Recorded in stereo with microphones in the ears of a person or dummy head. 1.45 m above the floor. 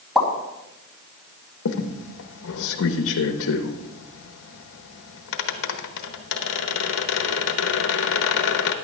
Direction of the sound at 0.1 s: 5° right (ahead or behind).